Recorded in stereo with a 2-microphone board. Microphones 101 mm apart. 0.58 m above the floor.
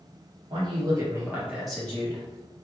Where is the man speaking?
50° right (ahead or behind), 1.4 m; by 2.2 s 30° left (ahead or behind), 1.0 m.